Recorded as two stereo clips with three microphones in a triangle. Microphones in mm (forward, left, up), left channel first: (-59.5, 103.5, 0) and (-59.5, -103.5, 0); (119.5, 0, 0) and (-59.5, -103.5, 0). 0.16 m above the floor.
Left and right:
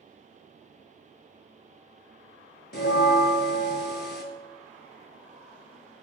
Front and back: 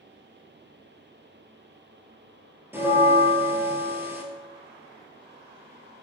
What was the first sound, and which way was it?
A bell, 130° left.